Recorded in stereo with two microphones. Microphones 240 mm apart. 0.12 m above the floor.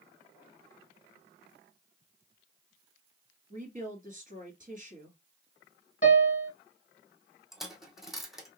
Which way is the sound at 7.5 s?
Centre (ahead or behind).